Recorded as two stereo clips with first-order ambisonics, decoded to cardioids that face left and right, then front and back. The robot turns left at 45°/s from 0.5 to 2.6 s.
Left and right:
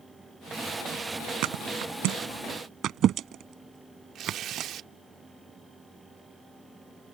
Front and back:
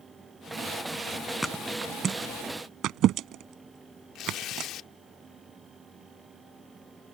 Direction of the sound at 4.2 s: 40° right.